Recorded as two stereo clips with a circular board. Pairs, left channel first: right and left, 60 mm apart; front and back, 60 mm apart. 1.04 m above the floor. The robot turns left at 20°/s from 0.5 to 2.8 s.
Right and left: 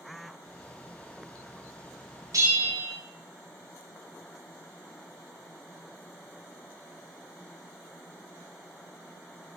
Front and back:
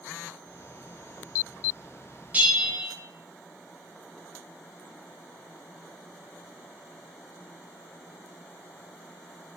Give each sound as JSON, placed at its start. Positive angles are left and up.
{"t": 2.3, "sound": "a bell", "azimuth_deg": 115, "distance_m": 0.6}